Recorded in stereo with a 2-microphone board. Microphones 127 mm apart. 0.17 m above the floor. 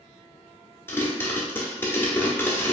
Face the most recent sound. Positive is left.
turn(degrees=20)  # may be behind; listen again after turning